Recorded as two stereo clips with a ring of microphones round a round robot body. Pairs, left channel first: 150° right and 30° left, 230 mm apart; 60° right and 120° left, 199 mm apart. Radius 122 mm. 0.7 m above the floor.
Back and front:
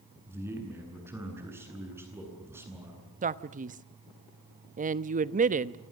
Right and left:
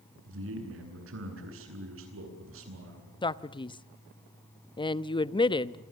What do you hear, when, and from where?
0.3 s a man speaking: 110° left, 9 m
3.2 s a man speaking: 5° right, 1.1 m